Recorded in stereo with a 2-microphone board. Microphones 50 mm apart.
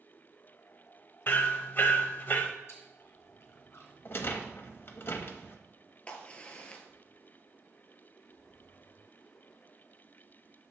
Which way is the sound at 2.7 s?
60° left (ahead or behind).